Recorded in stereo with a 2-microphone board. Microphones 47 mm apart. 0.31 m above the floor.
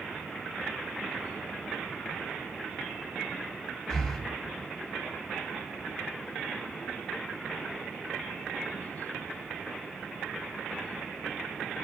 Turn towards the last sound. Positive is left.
turn(degrees=15)  # may be behind; listen again after turning